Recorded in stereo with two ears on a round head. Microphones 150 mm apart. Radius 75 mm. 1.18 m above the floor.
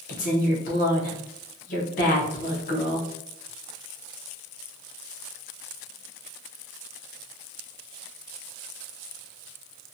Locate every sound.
0.1 s a woman speaking: 50° left (ahead or behind), 0.8 m